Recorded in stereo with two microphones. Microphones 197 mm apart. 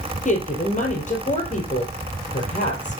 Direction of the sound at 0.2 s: 40° left (ahead or behind).